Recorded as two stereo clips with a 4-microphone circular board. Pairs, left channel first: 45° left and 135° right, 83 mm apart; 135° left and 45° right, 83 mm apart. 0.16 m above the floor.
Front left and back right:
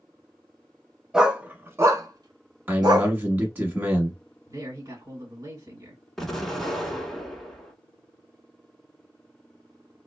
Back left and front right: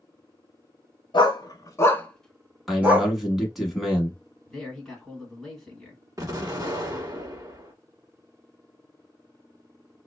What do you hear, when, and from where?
1.1 s a dog barking: 145° left, 0.7 m; by 3.1 s 105° right, 0.8 m
2.7 s a man speaking: 125° right, 1.1 m
4.5 s a man speaking: 145° right, 1.5 m
6.2 s an explosion: 40° right, 0.9 m